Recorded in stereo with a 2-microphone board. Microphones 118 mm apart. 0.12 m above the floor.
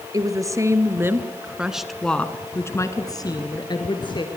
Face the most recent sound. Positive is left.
turn(degrees=40)  # may be behind; listen again after turning